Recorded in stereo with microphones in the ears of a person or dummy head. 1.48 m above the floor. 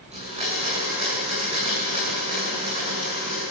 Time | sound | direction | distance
0.1 | a blender | 35° right (ahead or behind) | 8.5 m